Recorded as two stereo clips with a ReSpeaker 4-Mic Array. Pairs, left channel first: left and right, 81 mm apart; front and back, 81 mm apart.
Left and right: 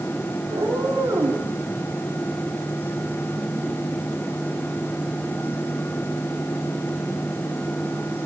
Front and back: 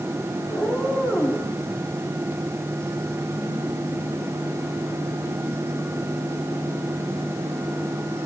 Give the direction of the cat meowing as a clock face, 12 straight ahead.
2 o'clock.